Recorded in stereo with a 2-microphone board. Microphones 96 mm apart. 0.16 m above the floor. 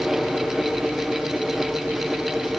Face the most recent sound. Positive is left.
No sound to turn to.